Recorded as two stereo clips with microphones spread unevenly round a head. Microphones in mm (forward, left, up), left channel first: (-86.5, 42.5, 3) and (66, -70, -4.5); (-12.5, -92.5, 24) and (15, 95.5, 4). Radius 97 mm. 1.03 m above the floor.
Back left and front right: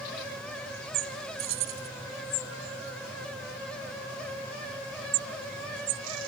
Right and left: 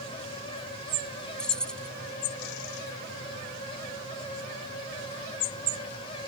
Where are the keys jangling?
15° right.